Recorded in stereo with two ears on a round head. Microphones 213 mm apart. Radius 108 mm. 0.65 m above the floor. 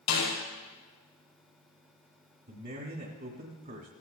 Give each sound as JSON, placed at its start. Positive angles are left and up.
{"t": 0.1, "sound": "a snare drum", "side_deg": 85, "distance_m": 6.0}
{"t": 2.5, "sound": "a man speaking", "side_deg": -45, "distance_m": 1.9}